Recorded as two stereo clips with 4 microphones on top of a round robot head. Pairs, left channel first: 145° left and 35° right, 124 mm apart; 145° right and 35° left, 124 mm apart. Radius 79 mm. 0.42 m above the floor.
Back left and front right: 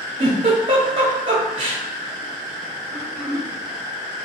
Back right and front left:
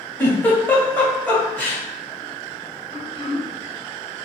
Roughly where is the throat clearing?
Behind right.